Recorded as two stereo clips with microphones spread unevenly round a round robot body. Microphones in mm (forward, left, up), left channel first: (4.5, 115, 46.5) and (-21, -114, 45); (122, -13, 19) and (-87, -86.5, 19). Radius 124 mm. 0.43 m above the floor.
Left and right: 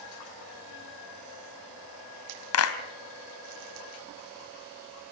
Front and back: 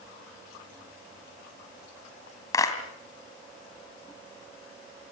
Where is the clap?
95° left, 2.5 m.